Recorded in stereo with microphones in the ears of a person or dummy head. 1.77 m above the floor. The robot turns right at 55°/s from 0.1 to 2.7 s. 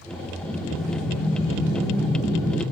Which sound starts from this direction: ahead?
Breathing, at 0.4 s.